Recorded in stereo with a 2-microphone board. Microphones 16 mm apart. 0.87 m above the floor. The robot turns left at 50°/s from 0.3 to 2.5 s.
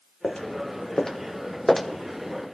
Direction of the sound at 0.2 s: 55° left (ahead or behind).